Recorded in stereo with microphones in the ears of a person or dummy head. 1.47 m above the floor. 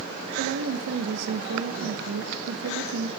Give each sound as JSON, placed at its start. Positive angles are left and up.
{"t": 0.4, "sound": "a woman speaking", "side_deg": -65, "distance_m": 1.4}